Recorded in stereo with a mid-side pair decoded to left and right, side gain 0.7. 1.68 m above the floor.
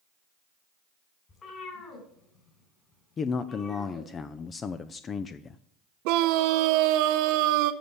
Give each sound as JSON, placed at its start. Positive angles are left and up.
{"t": 1.3, "sound": "a cat meowing", "azimuth_deg": 35, "distance_m": 3.5}
{"t": 3.2, "sound": "a man speaking", "azimuth_deg": 30, "distance_m": 0.6}
{"t": 6.0, "sound": "a scream", "azimuth_deg": -70, "distance_m": 0.7}